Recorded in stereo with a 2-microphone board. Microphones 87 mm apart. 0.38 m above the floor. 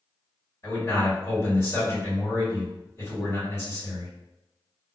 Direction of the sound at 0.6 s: 35° left (ahead or behind).